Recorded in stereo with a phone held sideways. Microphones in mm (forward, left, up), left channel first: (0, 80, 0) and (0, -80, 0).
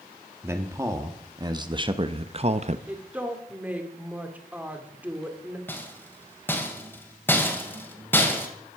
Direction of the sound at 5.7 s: 15° left (ahead or behind).